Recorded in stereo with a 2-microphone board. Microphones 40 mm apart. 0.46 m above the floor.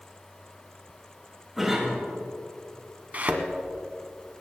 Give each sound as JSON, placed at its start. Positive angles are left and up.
{"t": 1.6, "sound": "a cough", "side_deg": -5, "distance_m": 5.0}
{"t": 3.1, "sound": "a thud", "side_deg": -45, "distance_m": 1.4}